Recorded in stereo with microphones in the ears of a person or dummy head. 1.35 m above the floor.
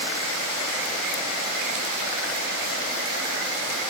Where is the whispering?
I don't hear whispering.